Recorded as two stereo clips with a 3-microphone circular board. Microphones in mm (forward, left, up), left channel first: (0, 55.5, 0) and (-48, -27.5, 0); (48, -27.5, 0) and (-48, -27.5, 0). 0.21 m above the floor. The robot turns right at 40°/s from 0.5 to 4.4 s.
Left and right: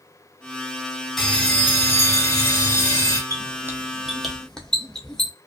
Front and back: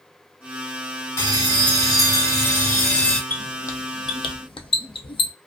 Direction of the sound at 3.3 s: 70° right.